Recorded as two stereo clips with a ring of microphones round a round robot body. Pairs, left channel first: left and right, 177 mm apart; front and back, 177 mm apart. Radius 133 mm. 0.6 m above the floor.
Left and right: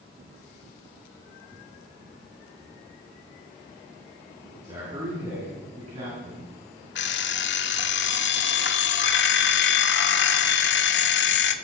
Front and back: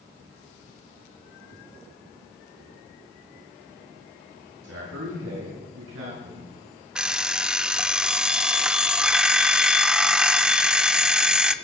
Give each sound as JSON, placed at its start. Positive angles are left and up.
{"t": 4.6, "sound": "a man speaking", "azimuth_deg": -165, "distance_m": 8.0}
{"t": 7.0, "sound": "an alarm clock", "azimuth_deg": 95, "distance_m": 1.1}